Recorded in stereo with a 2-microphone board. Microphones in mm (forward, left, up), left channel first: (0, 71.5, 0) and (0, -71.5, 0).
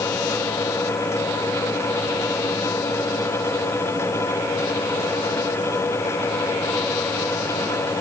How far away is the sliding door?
I don't hear a sliding door.